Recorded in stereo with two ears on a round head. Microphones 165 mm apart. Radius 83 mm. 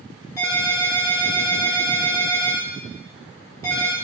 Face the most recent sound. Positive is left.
turn(degrees=15)  # may be behind; listen again after turning